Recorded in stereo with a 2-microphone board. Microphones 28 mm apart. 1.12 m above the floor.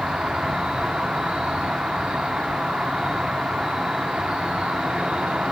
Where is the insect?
30° right (ahead or behind), 0.8 m.